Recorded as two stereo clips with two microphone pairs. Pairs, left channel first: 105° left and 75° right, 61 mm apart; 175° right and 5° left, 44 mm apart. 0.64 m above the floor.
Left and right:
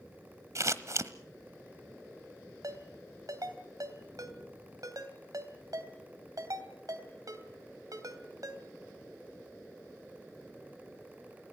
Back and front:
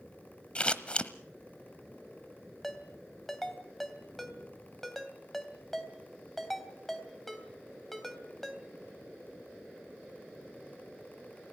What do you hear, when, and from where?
0.6 s scissors: 110° right, 1.1 m
2.6 s a ringtone: 90° right, 2.5 m